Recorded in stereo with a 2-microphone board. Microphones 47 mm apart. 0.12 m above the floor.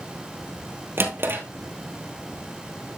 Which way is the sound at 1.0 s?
50° right (ahead or behind).